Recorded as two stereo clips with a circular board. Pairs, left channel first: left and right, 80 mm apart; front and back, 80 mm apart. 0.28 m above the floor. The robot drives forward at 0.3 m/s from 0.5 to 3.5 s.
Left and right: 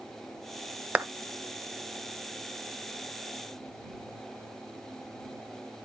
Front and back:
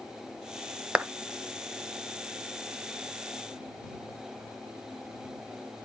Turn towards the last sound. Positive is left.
turn(degrees=-165)